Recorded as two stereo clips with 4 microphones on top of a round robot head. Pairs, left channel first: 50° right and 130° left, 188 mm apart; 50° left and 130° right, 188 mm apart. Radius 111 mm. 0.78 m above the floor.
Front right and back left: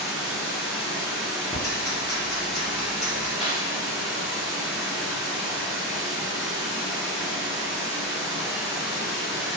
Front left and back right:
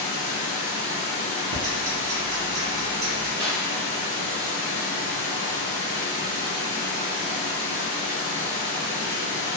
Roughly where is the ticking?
Behind right.